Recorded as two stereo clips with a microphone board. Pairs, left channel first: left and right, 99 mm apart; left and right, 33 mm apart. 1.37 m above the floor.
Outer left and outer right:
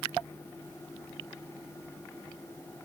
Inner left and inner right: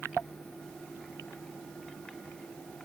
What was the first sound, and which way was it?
Only background noise.